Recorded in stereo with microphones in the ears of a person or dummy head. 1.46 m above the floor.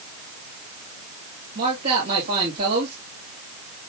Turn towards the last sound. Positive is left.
turn(degrees=-45)  # may be behind; listen again after turning